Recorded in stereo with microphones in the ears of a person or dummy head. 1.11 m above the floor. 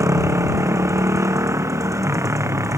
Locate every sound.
0.0 s a motorcycle: 15° right (ahead or behind)